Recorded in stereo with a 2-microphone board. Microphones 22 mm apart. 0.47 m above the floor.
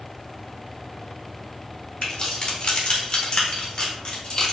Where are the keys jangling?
35° left (ahead or behind), 1.0 m.